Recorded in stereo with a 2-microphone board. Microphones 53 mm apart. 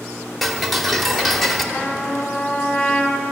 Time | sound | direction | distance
0.4 | ticking | centre (ahead or behind) | 0.9 m
1.7 | a trumpet | 30° left (ahead or behind) | 1.1 m